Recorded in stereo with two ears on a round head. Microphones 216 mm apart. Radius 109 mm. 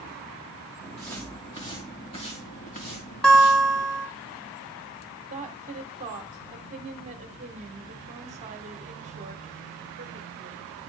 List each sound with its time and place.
0.8 s footsteps: 5° left (ahead or behind), 2 m; by 3.9 s 40° left (ahead or behind), 3 m
3.2 s a guitar: 5° left (ahead or behind), 1.7 m
5.3 s a woman speaking: 30° right (ahead or behind), 1.3 m